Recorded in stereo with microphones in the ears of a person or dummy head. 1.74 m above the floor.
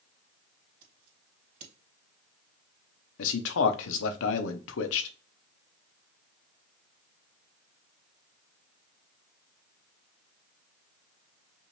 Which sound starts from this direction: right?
Scissors, at 0.8 s.